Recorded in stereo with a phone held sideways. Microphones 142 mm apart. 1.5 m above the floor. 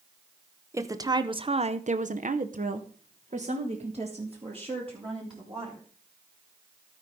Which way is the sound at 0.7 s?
20° right (ahead or behind).